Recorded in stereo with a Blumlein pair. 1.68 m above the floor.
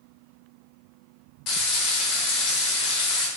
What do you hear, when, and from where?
1.5 s frying: 30° left, 0.7 m